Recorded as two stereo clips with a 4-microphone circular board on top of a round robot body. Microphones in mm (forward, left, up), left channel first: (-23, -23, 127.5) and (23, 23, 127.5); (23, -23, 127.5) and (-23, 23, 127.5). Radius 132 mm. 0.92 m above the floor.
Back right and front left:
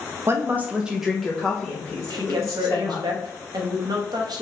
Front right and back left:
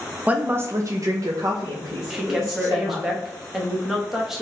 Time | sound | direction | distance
0.3 | a woman speaking | 75° left | 0.7 m
2.1 | a woman speaking | 50° left | 1.1 m